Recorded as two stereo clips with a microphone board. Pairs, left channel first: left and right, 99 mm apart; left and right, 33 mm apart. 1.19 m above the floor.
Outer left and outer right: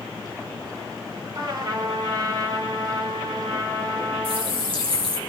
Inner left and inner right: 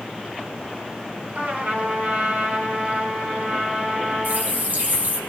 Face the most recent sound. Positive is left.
turn(degrees=-70)  # may be behind; listen again after turning